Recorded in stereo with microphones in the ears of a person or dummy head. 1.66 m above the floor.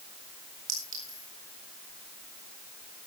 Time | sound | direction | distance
0.7 | a clink | 45° right (ahead or behind) | 3.5 m